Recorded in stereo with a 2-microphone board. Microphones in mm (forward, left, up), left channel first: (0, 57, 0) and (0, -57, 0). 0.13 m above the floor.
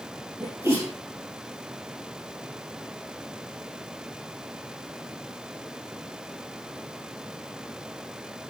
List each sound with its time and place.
0.4 s a sneeze: 25° right (ahead or behind), 4 m